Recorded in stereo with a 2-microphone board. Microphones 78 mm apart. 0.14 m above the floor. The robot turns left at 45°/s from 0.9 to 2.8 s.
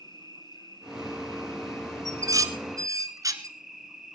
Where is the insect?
80° left, 2.5 m; by 4.2 s 5° right, 2.5 m.